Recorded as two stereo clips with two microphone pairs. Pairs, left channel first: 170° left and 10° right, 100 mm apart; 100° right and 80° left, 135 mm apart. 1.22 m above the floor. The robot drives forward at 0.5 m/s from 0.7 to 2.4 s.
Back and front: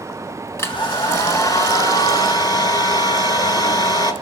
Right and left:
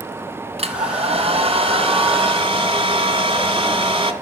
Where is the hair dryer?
110° left, 2.5 m; by 4.1 s 130° left, 3 m.